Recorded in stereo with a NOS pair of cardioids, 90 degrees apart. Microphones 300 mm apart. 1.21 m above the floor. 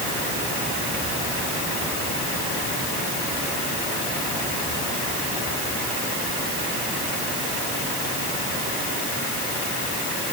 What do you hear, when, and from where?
Only background noise.